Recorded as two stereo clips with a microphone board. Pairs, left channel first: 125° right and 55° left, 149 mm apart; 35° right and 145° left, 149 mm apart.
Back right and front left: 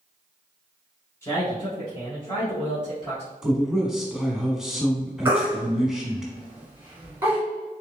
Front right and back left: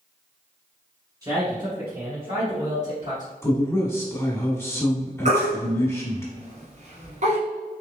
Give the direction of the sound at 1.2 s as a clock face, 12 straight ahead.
6 o'clock.